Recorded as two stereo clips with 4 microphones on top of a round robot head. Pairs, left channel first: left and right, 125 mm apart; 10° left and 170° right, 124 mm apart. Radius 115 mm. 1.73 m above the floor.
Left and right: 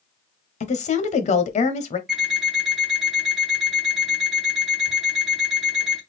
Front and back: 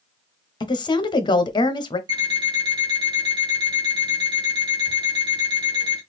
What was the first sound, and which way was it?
A woman speaking, 65° left.